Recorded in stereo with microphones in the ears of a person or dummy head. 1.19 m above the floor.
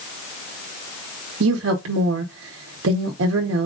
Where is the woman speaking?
70° right (ahead or behind), 0.9 m.